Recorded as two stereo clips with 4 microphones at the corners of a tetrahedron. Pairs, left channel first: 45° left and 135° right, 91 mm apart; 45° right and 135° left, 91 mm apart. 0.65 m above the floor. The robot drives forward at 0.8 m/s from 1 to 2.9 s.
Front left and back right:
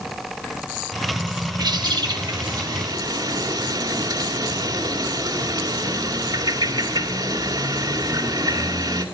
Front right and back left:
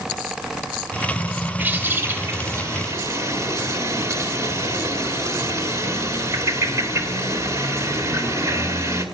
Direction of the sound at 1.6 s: 160° right.